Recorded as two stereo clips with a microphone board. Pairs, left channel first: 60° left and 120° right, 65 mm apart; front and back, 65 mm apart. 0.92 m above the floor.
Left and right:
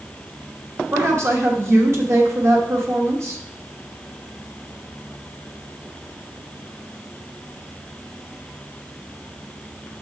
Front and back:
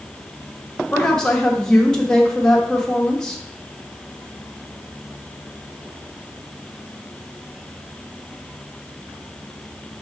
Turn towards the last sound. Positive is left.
turn(degrees=-80)